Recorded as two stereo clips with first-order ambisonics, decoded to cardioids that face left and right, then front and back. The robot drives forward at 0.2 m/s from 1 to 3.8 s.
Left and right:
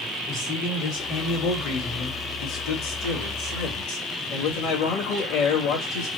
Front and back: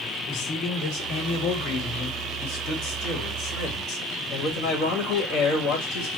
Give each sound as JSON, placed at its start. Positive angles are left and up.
{"t": 0.3, "sound": "a man speaking", "azimuth_deg": 40, "distance_m": 2.0}